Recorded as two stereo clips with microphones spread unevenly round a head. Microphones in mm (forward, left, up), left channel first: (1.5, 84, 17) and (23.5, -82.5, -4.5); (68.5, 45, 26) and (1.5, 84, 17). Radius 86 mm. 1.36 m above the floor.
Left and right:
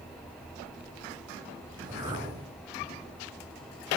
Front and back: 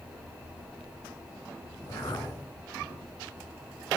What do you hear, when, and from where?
1.7 s a whoosh: 15° right, 3 m